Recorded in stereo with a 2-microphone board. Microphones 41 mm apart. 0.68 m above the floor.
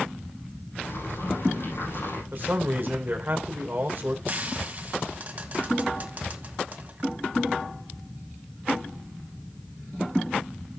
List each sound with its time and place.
0.8 s boiling: 75° left (ahead or behind), 5.5 m
2.3 s a man speaking: 40° right (ahead or behind), 2.5 m
4.3 s frying: 45° right (ahead or behind), 1.8 m